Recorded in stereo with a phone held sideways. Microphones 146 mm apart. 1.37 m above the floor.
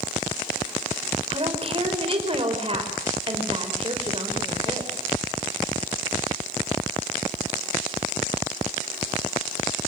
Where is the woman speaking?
40° right (ahead or behind), 5 m.